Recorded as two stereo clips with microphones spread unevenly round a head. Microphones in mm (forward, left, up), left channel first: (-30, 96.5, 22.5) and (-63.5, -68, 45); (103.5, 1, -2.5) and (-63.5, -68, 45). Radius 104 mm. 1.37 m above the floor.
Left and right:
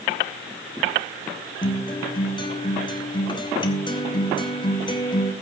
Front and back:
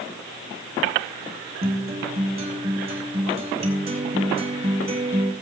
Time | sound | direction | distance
1.6 | a guitar | 145° left | 3 m